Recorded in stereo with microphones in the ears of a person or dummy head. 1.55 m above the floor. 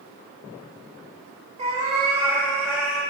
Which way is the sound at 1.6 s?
30° right (ahead or behind).